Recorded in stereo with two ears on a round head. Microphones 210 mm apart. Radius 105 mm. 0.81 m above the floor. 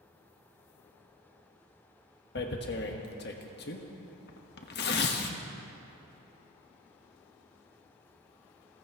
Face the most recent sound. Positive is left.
turn(degrees=50)  # may be behind; listen again after turning